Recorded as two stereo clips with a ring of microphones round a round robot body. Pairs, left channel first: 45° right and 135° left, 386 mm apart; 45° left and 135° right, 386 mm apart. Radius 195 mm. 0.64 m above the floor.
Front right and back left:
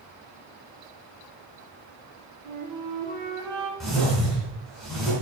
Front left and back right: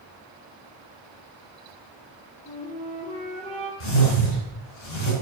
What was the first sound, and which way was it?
A flute, 115° left.